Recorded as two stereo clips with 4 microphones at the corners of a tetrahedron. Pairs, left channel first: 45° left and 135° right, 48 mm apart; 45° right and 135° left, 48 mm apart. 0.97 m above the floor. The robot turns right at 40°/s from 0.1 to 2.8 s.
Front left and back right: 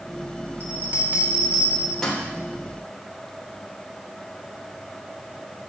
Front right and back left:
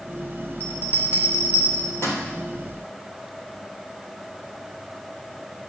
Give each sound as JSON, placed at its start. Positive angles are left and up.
{"t": 0.6, "sound": "a bell", "azimuth_deg": -95, "distance_m": 3.5}